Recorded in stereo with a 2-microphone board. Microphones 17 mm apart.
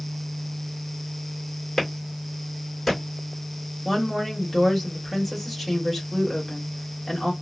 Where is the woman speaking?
10° right (ahead or behind), 1.7 m.